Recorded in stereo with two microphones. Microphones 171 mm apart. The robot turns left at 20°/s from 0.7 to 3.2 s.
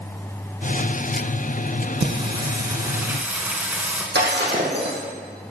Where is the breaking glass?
90° right, 3 m.